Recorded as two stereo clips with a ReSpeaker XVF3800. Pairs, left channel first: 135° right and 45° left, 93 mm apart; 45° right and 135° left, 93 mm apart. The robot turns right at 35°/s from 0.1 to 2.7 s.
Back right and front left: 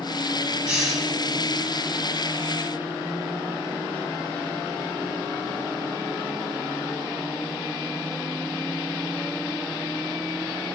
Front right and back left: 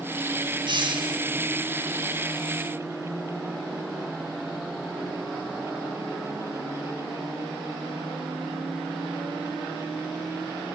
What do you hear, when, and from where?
0.7 s a hiss: 125° left, 2.5 m; by 1.2 s 145° left, 2.5 m